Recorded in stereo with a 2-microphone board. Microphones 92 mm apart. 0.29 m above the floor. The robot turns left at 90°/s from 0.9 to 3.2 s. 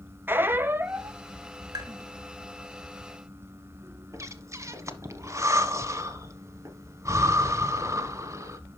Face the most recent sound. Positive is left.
turn(degrees=-30)  # may be behind; listen again after turning